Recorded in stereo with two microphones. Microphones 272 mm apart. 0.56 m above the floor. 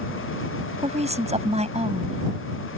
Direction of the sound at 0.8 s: 25° right (ahead or behind).